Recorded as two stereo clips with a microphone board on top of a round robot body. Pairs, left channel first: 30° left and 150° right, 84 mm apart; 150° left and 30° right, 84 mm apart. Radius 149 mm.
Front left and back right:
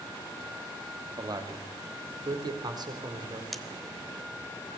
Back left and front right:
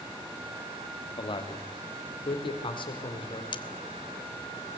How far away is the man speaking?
About 2.5 m.